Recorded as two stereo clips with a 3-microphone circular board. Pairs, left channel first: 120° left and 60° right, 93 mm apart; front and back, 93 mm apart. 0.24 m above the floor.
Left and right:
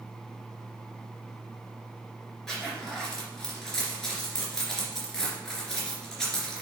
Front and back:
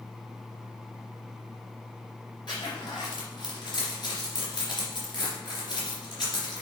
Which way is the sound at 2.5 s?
35° left.